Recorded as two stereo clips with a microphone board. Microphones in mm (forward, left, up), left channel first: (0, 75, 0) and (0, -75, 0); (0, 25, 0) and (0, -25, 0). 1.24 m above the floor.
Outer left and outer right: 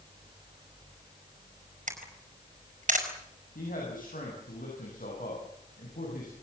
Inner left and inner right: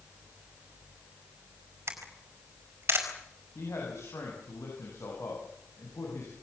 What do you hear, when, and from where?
1.9 s a camera shutter: 55° right (ahead or behind), 5 m
3.5 s a man speaking: 70° left (ahead or behind), 8.5 m